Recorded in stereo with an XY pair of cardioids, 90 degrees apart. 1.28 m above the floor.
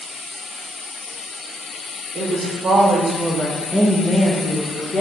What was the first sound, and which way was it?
A woman speaking, 65° right.